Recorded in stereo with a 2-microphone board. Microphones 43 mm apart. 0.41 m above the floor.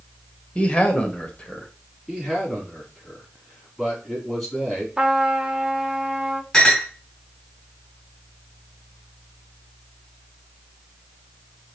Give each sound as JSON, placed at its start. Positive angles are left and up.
{"t": 0.6, "sound": "a man speaking", "side_deg": 25, "distance_m": 1.3}
{"t": 2.1, "sound": "a man speaking", "side_deg": -5, "distance_m": 3.0}
{"t": 5.0, "sound": "a trumpet", "side_deg": -15, "distance_m": 0.6}
{"t": 6.5, "sound": "a clink", "side_deg": 15, "distance_m": 2.0}